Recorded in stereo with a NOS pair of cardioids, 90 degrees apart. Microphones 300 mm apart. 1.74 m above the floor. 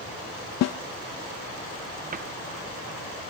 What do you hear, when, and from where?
0.6 s a snare drum: 60° left, 0.6 m
2.1 s a cupboard door: 30° right, 1.1 m